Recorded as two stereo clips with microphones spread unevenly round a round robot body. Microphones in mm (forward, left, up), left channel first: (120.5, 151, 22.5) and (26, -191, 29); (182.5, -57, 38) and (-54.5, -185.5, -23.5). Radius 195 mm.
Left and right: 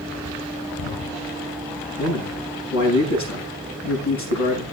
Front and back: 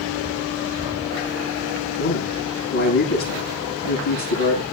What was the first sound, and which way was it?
A man speaking, 40° left.